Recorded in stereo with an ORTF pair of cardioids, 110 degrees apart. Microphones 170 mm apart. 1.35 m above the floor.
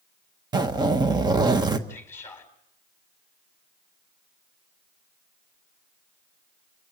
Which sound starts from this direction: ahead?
A man speaking, at 1.9 s.